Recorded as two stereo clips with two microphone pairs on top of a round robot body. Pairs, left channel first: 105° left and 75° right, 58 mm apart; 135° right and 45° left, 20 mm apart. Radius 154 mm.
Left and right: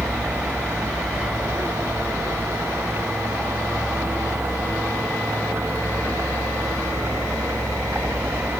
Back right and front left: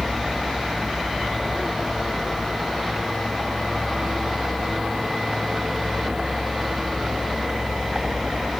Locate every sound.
0.0 s a vehicle: 20° right